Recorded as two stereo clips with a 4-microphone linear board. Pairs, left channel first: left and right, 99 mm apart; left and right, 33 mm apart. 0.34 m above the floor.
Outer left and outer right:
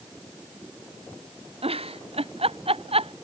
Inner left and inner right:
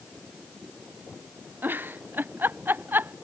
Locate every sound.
1.6 s a giggle: 85° right